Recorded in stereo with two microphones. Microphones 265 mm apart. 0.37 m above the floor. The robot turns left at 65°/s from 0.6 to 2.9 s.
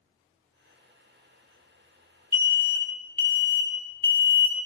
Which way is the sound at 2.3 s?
10° right (ahead or behind).